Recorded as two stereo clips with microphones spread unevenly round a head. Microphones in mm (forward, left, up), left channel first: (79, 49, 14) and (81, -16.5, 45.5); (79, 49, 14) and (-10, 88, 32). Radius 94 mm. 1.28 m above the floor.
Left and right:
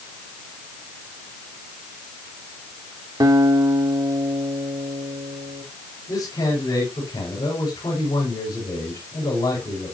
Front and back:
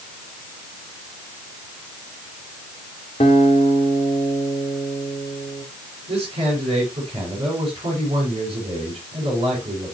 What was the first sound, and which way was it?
A guitar, 75° right.